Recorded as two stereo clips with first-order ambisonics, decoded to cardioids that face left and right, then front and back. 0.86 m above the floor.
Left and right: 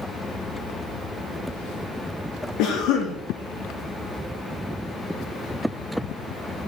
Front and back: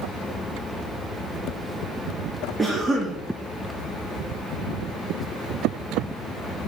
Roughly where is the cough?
Left.